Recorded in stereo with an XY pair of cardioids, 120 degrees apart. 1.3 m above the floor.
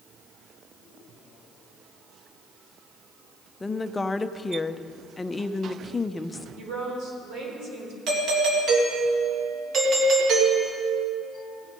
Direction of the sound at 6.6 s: 65° right.